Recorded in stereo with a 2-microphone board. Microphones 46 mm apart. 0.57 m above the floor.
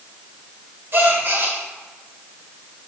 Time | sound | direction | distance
0.9 | a gasp | 55° right (ahead or behind) | 1.6 m